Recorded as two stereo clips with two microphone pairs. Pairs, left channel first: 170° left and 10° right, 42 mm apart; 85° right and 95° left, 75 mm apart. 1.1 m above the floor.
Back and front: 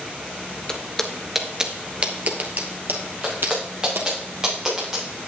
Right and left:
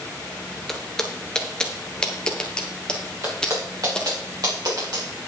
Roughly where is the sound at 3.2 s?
Ahead left.